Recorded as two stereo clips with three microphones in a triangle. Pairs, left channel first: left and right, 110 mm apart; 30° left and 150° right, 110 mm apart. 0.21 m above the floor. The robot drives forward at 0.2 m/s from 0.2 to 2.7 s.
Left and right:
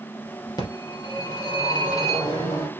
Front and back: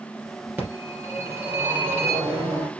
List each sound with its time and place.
0.6 s a phone ringing: 135° left, 2.5 m; by 2.7 s 145° left, 3 m